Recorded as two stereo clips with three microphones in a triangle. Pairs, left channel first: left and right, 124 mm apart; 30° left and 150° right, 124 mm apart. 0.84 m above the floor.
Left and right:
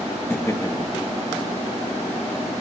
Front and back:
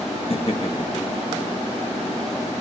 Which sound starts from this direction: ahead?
Laughter, at 0.3 s.